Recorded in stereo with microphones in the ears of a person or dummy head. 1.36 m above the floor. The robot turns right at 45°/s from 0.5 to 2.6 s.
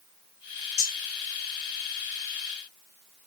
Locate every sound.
0.8 s cutlery clinking: 50° left (ahead or behind), 1.8 m; by 1.0 s 45° left (ahead or behind), 1.8 m